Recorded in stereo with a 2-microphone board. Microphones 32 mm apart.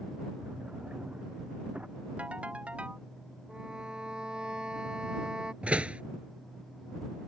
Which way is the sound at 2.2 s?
45° right (ahead or behind).